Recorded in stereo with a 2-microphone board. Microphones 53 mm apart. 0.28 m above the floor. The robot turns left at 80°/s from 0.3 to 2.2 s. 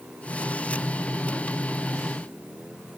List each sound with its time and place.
Only background noise.